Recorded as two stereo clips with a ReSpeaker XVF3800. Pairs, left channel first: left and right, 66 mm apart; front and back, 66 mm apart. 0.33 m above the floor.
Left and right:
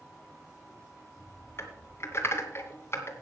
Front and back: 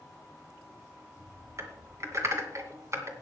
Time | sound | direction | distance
1.6 | typing on a keyboard | 140° left | 2 m